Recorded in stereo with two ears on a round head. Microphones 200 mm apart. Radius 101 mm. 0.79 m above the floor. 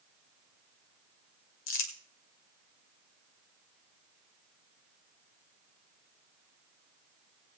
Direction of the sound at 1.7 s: 55° left (ahead or behind).